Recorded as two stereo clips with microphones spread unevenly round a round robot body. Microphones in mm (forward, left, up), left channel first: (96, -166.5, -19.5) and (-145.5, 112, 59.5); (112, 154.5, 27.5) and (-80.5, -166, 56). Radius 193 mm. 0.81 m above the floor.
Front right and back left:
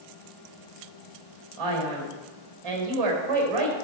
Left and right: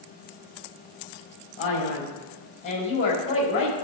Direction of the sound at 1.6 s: 130° left.